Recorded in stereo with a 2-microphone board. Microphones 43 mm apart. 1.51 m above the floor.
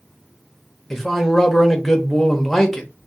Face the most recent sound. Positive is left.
turn(degrees=5)  # may be behind; listen again after turning